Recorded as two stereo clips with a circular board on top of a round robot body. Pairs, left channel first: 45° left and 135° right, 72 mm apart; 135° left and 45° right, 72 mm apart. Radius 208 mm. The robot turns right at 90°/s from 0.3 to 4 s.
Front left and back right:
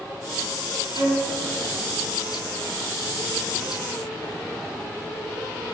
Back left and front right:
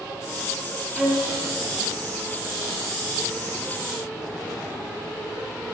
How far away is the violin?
About 4.5 m.